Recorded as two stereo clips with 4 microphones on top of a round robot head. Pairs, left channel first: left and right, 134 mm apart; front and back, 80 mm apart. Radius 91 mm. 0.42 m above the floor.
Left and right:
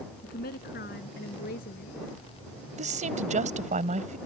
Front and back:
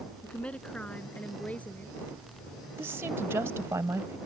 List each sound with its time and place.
0.2 s a woman speaking: 75° left; by 2.0 s 70° left
2.8 s a woman speaking: 115° right